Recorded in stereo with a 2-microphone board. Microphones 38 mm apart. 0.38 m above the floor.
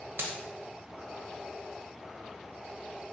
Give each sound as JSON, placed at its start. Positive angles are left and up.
{"t": 0.2, "sound": "a dropped coin", "side_deg": -65, "distance_m": 0.7}